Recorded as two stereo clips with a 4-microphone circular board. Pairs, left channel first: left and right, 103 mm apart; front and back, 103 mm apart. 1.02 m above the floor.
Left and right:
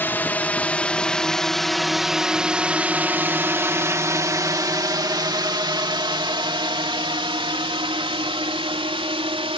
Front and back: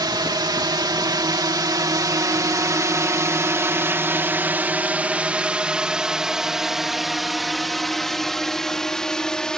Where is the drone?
155° left; by 9.6 s 80° right.